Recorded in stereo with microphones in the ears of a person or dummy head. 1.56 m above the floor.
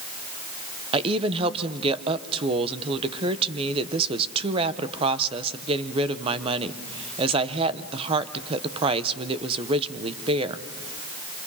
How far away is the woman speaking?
About 1.0 m.